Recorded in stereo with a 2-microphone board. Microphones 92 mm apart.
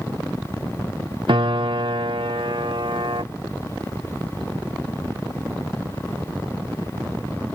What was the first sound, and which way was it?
A piano, 65° right (ahead or behind).